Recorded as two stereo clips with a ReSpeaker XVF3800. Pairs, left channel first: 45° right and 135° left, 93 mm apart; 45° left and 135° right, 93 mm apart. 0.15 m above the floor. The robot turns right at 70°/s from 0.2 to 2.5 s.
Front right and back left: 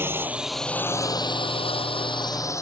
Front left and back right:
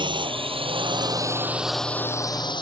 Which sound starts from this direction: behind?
A drone, at 0.0 s.